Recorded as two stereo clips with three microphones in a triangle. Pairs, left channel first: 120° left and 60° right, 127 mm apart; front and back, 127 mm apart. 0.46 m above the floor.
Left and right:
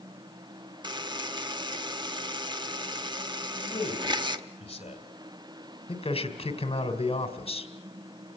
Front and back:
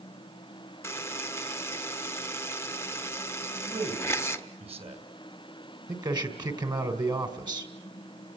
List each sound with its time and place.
0.8 s a buzzer: 55° right, 0.9 m
3.5 s a man speaking: 150° left, 3 m
5.9 s a man speaking: 135° left, 2 m